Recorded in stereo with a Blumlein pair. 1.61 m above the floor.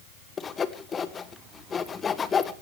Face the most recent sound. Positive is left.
turn(degrees=20)